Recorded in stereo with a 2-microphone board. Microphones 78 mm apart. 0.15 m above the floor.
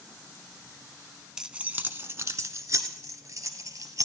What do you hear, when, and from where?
1.4 s keys jangling: 10° right (ahead or behind), 0.7 m; by 4.0 s 50° right (ahead or behind), 2.0 m